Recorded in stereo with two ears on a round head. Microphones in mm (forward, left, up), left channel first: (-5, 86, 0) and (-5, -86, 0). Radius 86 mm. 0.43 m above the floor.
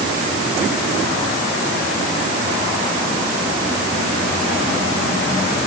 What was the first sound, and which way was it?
Only background noise.